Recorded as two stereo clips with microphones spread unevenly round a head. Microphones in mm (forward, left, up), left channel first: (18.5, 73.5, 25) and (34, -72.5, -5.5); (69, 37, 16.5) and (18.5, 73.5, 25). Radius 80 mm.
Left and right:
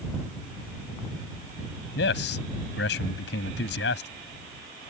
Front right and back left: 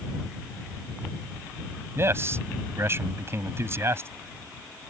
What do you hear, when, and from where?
1.9 s a man speaking: 100° left